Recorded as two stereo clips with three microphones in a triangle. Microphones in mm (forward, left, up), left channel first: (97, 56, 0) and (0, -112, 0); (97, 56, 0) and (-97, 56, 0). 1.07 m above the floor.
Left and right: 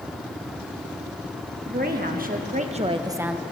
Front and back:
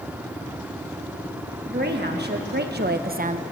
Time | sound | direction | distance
1.6 | a woman speaking | 150° right | 1.8 m